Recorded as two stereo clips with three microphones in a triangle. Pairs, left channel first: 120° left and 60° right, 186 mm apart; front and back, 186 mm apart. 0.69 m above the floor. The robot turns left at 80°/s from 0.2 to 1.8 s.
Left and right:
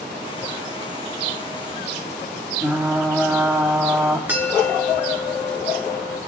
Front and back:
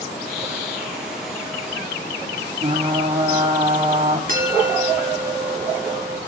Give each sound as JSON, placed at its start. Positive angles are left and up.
{"t": 2.6, "sound": "frying", "azimuth_deg": -145, "distance_m": 1.6}
{"t": 4.3, "sound": "a bell", "azimuth_deg": -140, "distance_m": 3.0}